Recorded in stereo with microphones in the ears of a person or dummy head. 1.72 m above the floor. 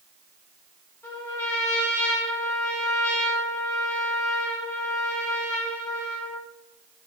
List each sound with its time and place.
1.0 s a trumpet: 15° left (ahead or behind), 1.5 m